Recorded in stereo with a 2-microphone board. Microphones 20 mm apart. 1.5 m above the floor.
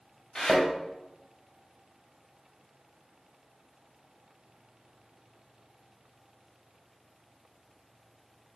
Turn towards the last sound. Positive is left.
turn(degrees=35)  # may be behind; listen again after turning